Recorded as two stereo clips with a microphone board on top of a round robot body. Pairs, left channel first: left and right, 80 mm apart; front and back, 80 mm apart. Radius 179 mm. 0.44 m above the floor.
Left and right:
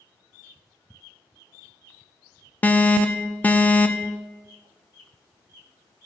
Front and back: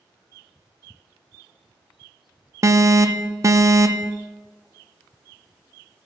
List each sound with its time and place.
2.6 s an alarm: 155° left, 0.6 m